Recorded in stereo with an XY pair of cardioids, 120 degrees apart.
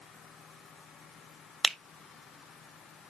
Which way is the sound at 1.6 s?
5° left.